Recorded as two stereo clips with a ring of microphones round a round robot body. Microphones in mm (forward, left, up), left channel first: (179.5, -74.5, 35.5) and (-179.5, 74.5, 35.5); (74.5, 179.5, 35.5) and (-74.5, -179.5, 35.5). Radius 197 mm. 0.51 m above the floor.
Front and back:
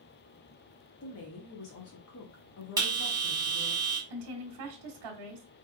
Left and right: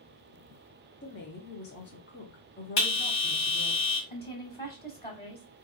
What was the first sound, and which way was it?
A woman speaking, 15° left.